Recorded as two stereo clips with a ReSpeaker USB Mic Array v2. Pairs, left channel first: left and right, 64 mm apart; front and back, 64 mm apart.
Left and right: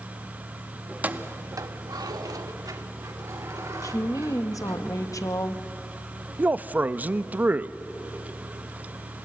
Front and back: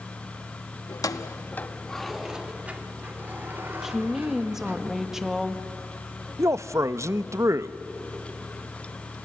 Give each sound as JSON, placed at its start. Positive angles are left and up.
{"t": 0.9, "sound": "keys jangling", "azimuth_deg": -15, "distance_m": 0.9}
{"t": 3.8, "sound": "a woman speaking", "azimuth_deg": 95, "distance_m": 1.2}
{"t": 6.4, "sound": "a man speaking", "azimuth_deg": -150, "distance_m": 0.5}